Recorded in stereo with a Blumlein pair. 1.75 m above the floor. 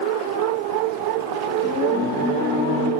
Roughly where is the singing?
Ahead left.